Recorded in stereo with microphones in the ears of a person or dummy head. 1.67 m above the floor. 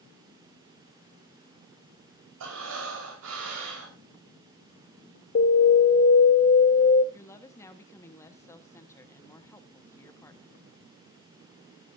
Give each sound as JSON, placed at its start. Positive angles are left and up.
{"t": 2.4, "sound": "breathing", "side_deg": -75, "distance_m": 4.5}
{"t": 5.3, "sound": "an alarm", "side_deg": 50, "distance_m": 1.8}
{"t": 7.1, "sound": "a woman speaking", "side_deg": 20, "distance_m": 1.3}